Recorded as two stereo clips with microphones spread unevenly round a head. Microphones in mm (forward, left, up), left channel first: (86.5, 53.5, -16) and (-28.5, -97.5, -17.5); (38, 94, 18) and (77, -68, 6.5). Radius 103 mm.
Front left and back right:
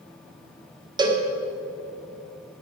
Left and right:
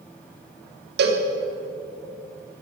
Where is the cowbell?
60° right, 1.7 m.